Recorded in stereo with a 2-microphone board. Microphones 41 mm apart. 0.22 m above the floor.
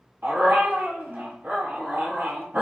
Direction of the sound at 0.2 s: 70° right (ahead or behind).